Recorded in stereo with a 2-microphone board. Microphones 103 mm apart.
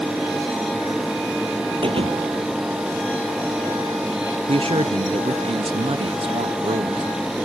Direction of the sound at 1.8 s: 60° right (ahead or behind).